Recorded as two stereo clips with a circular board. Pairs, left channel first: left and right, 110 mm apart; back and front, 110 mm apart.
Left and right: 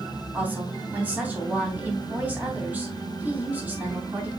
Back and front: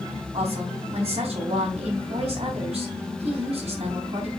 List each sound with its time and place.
0.3 s a woman speaking: 15° right, 3 m